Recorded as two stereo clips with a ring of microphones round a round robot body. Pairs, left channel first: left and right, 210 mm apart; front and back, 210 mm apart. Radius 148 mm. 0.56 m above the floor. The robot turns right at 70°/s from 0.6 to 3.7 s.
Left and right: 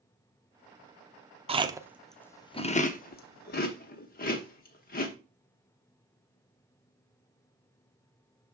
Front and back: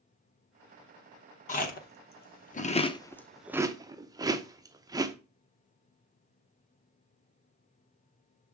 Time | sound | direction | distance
1.5 | chewing | 40° right | 0.9 m